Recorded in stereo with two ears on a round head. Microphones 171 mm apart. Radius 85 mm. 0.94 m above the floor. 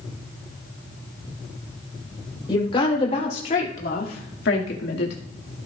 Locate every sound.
2.5 s a woman speaking: 25° left (ahead or behind), 4 m; by 5.2 s 65° left (ahead or behind), 2 m